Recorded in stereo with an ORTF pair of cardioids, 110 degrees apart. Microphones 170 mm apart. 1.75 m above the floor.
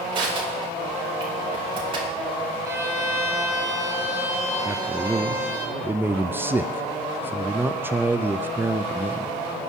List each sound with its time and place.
0.1 s crushing: 30° right, 4.5 m
2.6 s a violin: 15° right, 7 m
4.7 s a man speaking: 10° right, 0.6 m